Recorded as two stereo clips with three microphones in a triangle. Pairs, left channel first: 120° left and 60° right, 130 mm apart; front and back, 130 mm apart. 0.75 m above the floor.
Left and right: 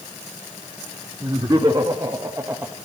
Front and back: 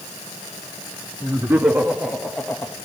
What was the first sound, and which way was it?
Laughter, 110° right.